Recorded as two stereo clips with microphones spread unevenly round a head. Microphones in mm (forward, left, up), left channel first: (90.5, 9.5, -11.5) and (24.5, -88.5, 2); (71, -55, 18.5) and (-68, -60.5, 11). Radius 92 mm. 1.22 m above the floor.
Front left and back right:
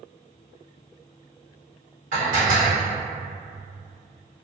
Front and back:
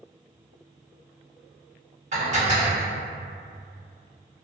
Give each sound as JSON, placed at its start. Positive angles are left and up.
{"t": 2.1, "sound": "dishes clattering", "azimuth_deg": -140, "distance_m": 1.4}